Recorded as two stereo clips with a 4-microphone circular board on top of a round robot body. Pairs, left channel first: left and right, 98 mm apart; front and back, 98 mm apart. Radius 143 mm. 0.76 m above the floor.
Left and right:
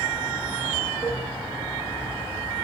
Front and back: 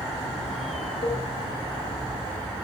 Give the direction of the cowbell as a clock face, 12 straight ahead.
1 o'clock.